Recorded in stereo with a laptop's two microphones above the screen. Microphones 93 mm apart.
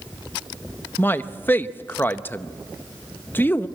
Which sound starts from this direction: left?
A man speaking, at 1.0 s.